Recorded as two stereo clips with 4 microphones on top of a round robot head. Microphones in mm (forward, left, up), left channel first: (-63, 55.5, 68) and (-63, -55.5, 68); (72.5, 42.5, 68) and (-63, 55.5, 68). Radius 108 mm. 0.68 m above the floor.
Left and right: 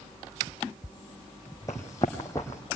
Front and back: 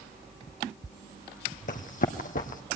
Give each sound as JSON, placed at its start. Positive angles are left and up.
{"t": 1.7, "sound": "running footsteps", "azimuth_deg": 15, "distance_m": 1.5}